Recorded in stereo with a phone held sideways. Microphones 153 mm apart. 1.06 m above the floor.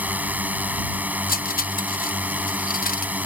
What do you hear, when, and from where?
0.0 s a drone: 10° right (ahead or behind)
1.3 s cutlery clinking: 75° left (ahead or behind)